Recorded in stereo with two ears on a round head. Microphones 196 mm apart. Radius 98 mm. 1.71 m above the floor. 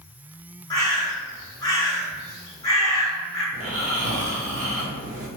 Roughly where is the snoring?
Right.